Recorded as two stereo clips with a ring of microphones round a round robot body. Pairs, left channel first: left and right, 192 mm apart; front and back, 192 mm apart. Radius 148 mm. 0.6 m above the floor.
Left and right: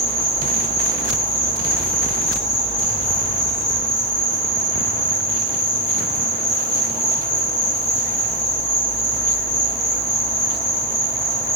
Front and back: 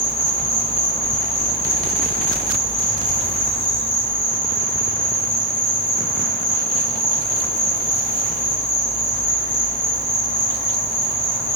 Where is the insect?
50° left, 3.5 m.